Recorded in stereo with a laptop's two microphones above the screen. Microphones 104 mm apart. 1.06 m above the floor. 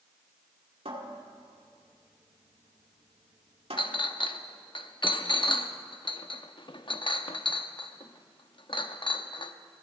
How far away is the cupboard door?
About 2 m.